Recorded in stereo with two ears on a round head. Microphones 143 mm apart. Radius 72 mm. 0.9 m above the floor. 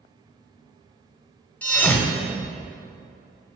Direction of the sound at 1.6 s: 10° left (ahead or behind).